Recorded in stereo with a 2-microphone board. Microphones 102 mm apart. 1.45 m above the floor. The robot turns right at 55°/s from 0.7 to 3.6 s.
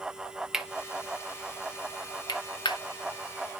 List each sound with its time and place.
0.5 s cutlery clinking: 5° right (ahead or behind), 0.8 m; by 2.8 s 45° left (ahead or behind), 0.8 m